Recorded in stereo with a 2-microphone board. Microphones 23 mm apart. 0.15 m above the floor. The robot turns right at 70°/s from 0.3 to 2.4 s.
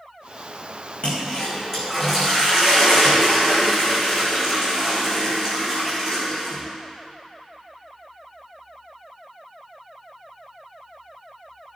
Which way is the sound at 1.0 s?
115° left.